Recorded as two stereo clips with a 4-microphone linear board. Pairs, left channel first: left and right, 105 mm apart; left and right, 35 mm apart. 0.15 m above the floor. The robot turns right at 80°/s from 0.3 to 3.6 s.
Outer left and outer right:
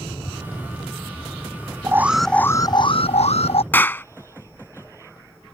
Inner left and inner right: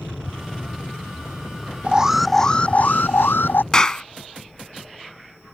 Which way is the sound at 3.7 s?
20° left (ahead or behind).